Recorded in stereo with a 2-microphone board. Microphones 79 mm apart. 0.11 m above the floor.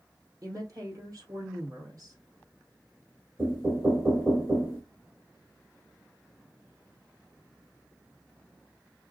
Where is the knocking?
30° right (ahead or behind), 2 m.